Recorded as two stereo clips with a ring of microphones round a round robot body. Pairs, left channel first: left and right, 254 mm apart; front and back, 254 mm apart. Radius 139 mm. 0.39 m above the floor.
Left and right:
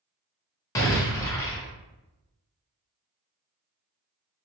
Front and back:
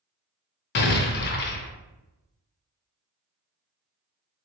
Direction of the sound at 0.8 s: 15° left.